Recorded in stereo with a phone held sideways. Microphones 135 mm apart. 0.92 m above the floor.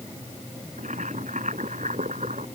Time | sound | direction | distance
0.8 | boiling | 65° right (ahead or behind) | ?